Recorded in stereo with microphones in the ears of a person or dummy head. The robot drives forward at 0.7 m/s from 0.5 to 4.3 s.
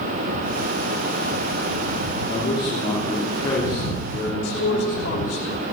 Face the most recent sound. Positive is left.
turn(degrees=70)  # may be behind; listen again after turning